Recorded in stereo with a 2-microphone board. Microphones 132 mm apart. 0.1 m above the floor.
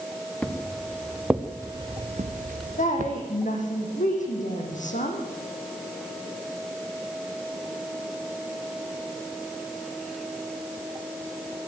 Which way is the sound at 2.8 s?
70° left (ahead or behind).